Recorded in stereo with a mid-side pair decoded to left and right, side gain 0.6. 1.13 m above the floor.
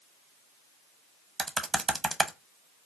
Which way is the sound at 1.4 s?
20° right.